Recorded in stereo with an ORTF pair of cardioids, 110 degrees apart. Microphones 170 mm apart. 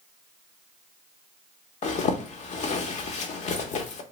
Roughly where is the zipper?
Ahead left.